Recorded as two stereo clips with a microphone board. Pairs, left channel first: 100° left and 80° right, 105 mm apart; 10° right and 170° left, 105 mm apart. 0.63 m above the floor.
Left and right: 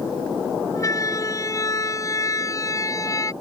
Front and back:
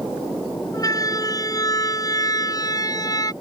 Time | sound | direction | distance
0.7 | a siren | 45° left | ?